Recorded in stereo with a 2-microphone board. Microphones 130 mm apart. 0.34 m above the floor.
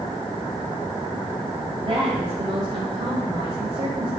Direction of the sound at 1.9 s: 45° right (ahead or behind).